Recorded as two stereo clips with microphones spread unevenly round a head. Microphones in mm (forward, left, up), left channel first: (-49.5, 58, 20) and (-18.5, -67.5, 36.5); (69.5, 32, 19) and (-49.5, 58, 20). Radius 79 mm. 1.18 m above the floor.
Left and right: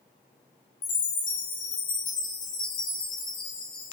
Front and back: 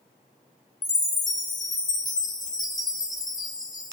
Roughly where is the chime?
Ahead left.